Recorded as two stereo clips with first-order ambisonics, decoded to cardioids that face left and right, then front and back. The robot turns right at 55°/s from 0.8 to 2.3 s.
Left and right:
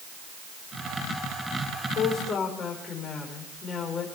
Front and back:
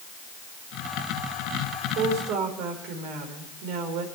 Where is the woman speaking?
140° left, 4.5 m; by 4.1 s 160° left, 4.5 m.